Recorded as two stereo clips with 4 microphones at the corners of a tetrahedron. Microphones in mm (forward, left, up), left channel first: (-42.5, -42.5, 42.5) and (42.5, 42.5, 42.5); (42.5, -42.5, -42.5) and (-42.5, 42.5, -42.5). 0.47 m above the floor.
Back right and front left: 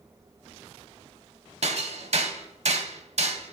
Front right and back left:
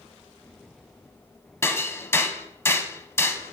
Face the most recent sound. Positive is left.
turn(degrees=25)